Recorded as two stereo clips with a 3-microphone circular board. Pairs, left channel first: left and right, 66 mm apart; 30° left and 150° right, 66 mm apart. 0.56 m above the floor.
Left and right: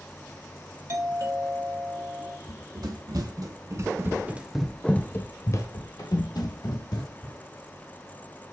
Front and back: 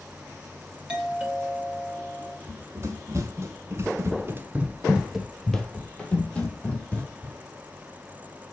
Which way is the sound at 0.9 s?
80° right.